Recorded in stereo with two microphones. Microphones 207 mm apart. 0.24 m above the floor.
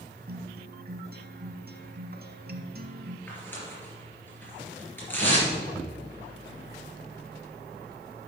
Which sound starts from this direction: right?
A guitar, at 0.3 s.